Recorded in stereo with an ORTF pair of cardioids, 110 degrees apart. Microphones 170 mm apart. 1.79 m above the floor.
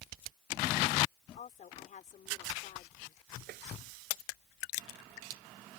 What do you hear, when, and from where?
1.4 s a woman speaking: 50° left
3.5 s tapping: 70° right